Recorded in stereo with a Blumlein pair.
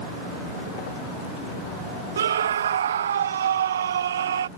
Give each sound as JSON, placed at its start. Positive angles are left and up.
{"t": 2.2, "sound": "a scream", "azimuth_deg": -65}